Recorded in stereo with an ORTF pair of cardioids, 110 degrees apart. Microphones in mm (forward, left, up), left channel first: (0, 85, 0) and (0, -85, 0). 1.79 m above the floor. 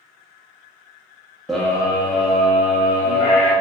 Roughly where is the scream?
Ahead.